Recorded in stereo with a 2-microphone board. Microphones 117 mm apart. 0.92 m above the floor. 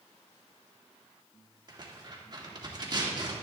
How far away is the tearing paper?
About 2.5 m.